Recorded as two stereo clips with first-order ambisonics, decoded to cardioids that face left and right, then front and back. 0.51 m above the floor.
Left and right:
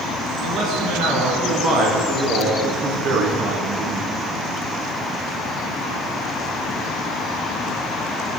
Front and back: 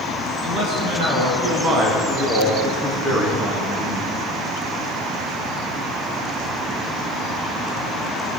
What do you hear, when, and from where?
0.4 s a man speaking: 130° right, 6 m; by 4.1 s 110° right, 4 m